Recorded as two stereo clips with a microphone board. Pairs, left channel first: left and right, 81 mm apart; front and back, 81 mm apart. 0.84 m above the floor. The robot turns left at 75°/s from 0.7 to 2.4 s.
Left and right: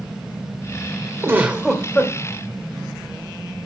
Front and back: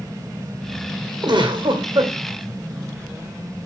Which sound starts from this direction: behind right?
A giggle, at 1.2 s.